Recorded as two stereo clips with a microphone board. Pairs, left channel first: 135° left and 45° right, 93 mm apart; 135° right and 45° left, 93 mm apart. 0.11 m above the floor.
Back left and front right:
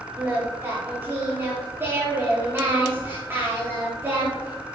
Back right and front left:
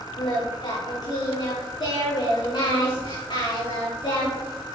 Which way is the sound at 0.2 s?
110° right.